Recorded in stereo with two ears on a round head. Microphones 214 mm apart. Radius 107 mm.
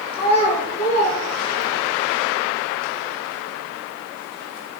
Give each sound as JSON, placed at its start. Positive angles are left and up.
{"t": 0.1, "sound": "a child speaking", "side_deg": 25, "distance_m": 6.0}